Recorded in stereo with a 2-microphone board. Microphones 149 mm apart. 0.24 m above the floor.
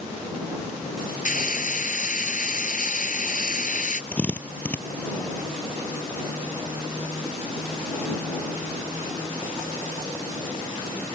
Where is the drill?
10° left (ahead or behind).